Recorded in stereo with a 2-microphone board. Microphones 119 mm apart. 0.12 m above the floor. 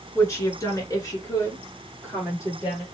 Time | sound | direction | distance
0.1 | a woman speaking | 25° left (ahead or behind) | 1.6 m